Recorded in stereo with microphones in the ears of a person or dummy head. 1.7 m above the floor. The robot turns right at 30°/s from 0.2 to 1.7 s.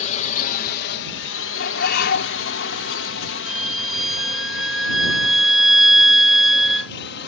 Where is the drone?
40° left (ahead or behind); by 7.3 s 65° left (ahead or behind).